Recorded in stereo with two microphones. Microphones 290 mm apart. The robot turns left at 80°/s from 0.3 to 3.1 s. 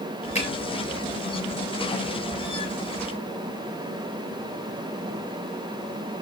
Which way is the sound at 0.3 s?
20° left (ahead or behind).